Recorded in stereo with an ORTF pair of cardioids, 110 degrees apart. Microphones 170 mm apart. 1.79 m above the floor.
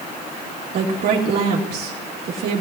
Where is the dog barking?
I don't hear a dog barking.